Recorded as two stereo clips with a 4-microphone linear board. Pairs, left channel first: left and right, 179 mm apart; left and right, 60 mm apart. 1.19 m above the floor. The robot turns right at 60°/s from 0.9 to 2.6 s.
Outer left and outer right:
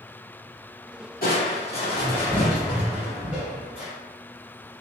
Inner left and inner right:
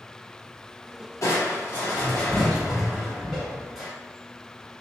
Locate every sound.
1.2 s crushing: 105° left, 1.0 m; by 3.9 s 170° right, 1.0 m